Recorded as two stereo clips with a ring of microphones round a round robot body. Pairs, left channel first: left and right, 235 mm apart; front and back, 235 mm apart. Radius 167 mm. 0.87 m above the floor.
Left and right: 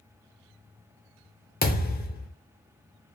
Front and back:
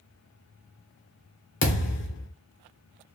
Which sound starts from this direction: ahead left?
A thud, at 1.6 s.